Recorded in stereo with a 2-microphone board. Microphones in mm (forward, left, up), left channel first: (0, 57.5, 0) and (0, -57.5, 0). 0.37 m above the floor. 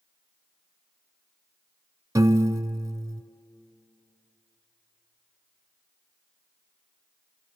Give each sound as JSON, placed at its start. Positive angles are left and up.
{"t": 2.1, "sound": "a piano", "side_deg": -30, "distance_m": 0.6}